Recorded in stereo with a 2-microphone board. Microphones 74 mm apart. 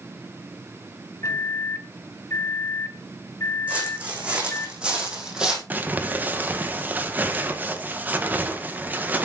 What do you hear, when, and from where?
1.2 s a microwave: 40° left (ahead or behind), 1.4 m
3.7 s footsteps: 20° right (ahead or behind), 6.5 m; by 5.6 s 10° right (ahead or behind), 4 m
5.7 s crumpling: 25° right (ahead or behind), 1.7 m